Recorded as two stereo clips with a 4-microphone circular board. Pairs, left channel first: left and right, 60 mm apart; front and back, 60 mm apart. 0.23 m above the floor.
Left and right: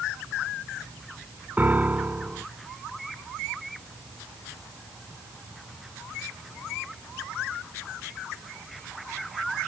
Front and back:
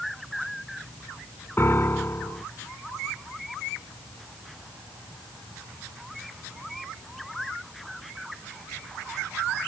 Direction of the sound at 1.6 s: 40° right.